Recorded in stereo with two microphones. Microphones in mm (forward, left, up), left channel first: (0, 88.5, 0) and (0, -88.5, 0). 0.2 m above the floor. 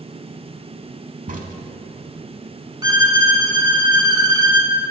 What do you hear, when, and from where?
1.3 s a crack: 50° right (ahead or behind), 0.6 m
2.8 s a violin: 25° right (ahead or behind), 0.8 m